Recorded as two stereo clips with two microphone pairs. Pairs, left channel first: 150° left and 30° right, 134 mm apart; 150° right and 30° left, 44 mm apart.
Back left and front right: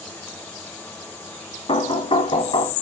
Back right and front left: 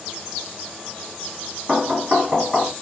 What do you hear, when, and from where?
1.7 s knocking: 105° left, 1.5 m